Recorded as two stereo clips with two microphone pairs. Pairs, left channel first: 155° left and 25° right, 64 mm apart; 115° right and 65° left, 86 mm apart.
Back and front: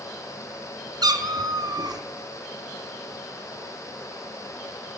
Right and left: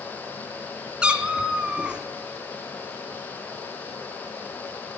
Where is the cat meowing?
10° right, 0.8 m.